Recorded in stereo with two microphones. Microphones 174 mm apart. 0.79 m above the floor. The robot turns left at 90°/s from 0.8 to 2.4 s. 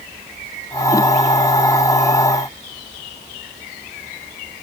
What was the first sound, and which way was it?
Only background noise.